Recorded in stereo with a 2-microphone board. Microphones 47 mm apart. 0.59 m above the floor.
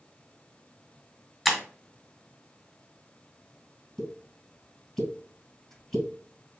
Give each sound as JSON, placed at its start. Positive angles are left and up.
{"t": 1.4, "sound": "breaking glass", "side_deg": 5, "distance_m": 1.4}
{"t": 4.0, "sound": "a pop", "side_deg": 5, "distance_m": 2.5}